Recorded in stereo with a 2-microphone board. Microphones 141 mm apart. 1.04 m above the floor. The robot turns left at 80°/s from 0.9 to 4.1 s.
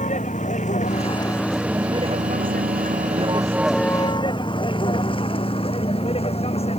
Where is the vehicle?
60° left (ahead or behind); by 6.8 s 45° left (ahead or behind).